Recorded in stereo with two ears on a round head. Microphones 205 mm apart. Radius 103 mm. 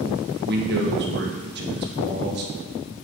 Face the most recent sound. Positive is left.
turn(degrees=-45)  # may be behind; listen again after turning